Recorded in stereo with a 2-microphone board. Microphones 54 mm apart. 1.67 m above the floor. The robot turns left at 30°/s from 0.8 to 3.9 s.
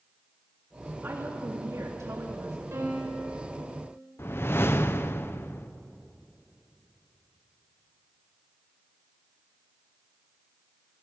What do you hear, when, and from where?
1.0 s a woman speaking: 40° right, 2.5 m; by 2.6 s 90° right, 2.5 m
2.7 s a piano: 60° right (ahead or behind), 4.5 m; by 3.4 s 80° right, 4.5 m
4.2 s a whoosh: 50° left (ahead or behind), 0.8 m